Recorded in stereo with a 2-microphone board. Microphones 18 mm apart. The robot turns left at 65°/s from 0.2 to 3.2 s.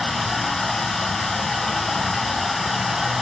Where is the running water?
150° left, 1.5 m; by 3.2 s 45° right, 1.5 m.